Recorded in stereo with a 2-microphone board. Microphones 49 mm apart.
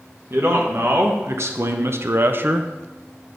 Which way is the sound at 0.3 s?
55° right (ahead or behind).